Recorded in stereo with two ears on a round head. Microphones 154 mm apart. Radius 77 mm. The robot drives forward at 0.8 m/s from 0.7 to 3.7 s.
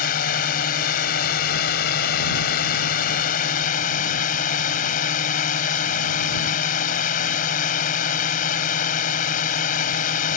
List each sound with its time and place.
0.0 s a drone: 55° left (ahead or behind)